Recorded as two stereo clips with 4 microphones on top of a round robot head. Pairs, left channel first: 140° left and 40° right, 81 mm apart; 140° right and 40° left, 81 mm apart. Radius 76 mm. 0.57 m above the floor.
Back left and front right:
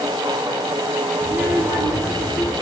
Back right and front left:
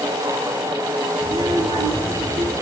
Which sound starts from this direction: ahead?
A child speaking, at 1.2 s.